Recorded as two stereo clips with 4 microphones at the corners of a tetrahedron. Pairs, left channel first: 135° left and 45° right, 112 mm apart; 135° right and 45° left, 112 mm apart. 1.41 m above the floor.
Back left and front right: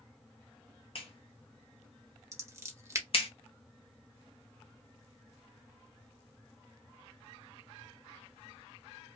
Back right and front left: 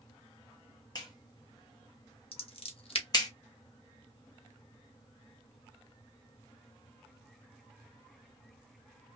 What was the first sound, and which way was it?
A clap, 170° left.